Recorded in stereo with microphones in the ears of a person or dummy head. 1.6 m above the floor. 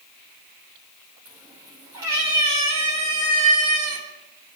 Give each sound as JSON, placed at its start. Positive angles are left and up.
{"t": 1.2, "sound": "a cat meowing", "side_deg": -10, "distance_m": 3.5}